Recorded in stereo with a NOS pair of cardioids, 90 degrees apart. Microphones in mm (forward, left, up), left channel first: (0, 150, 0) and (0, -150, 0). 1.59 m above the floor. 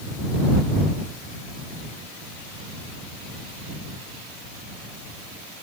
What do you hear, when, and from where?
Only background noise.